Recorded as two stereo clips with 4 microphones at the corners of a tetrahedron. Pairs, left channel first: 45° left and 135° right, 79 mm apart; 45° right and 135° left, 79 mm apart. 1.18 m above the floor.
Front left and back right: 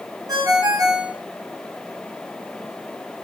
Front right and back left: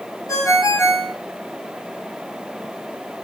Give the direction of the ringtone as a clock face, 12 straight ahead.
3 o'clock.